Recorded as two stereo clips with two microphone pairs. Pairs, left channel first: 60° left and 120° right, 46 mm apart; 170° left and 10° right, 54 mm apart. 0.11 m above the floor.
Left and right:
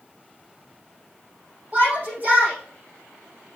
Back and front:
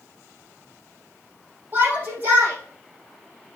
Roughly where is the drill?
I don't hear a drill.